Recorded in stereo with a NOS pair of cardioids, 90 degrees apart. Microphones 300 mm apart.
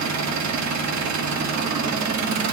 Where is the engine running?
65° right, 1.4 m.